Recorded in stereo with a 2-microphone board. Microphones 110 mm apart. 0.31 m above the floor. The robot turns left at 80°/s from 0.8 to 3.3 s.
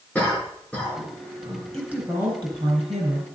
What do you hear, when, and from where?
0.1 s a cough: 10° left (ahead or behind), 4.5 m; by 1.6 s 50° right (ahead or behind), 4.5 m
1.7 s a woman speaking: 5° left, 4 m; by 3.4 s 120° right, 4 m